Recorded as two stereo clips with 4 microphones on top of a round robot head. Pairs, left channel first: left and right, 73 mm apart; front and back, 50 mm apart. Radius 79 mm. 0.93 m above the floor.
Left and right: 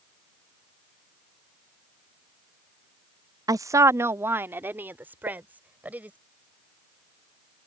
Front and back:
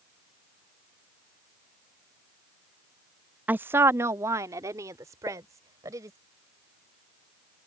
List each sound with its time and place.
3.5 s a woman speaking: 120° right; by 6.2 s 160° right
5.3 s a pop: 80° right